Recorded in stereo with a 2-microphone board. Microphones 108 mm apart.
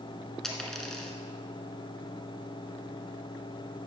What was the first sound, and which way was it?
A dropped coin, 5° left (ahead or behind).